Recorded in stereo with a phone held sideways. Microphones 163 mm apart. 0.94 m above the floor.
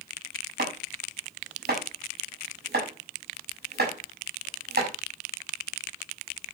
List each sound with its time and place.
0.6 s chopping: 85° right, 6.5 m